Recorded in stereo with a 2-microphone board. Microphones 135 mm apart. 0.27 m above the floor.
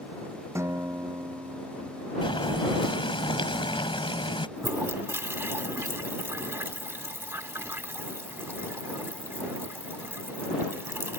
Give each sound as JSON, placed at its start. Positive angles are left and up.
{"t": 0.6, "sound": "a guitar", "side_deg": -20}
{"t": 2.2, "sound": "boiling", "side_deg": 40}
{"t": 4.6, "sound": "a toilet flushing", "side_deg": -15}